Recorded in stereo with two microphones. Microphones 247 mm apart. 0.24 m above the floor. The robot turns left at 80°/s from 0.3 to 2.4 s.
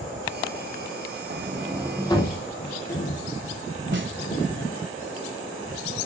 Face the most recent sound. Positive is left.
turn(degrees=-55)  # may be behind; listen again after turning